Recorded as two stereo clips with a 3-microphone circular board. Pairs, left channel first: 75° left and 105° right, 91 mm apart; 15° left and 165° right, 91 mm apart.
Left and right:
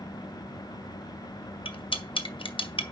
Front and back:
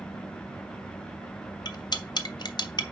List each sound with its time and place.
1.6 s cutlery clinking: 55° left, 0.8 m